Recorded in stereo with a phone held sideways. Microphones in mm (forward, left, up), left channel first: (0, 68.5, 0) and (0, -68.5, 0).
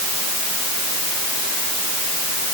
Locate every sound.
Only background noise.